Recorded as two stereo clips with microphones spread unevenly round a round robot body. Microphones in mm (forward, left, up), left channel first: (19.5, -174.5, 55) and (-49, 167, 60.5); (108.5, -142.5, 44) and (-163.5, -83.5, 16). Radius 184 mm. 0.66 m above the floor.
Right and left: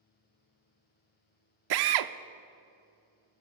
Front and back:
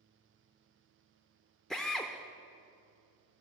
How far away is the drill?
About 0.9 m.